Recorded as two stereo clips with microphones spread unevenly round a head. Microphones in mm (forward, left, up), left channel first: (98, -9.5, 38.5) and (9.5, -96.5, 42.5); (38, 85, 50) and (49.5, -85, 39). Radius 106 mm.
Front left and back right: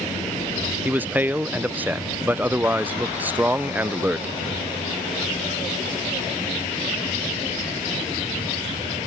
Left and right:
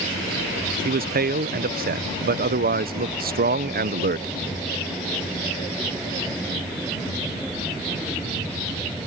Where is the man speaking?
60° right.